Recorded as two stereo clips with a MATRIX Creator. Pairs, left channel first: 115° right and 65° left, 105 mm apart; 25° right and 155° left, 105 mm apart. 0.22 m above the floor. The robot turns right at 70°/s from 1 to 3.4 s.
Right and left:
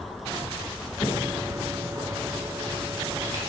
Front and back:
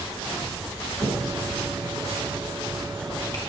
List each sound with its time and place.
1.0 s a finger snap: 135° right, 1.9 m; by 3.4 s 30° left, 1.9 m